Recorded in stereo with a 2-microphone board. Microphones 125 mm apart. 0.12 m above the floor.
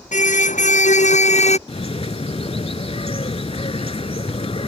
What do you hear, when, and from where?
0.1 s a car horn: 80° left; by 1.6 s 60° left (ahead or behind)
1.7 s a bird: 55° left (ahead or behind)